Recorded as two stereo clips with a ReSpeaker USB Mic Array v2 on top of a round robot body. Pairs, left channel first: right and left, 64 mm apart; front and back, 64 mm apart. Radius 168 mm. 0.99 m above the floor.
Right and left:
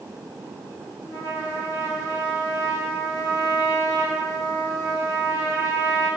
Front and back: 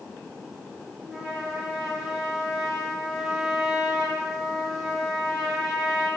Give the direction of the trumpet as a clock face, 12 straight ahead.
3 o'clock.